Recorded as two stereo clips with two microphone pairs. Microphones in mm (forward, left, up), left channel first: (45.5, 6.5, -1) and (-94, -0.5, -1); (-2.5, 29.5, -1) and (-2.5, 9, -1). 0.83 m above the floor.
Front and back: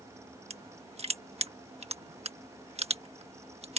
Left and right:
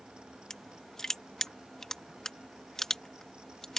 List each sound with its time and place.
0.5 s crushing: 150° left